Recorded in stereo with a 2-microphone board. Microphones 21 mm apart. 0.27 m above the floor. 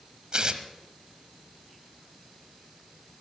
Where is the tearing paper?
45° right (ahead or behind), 1.0 m.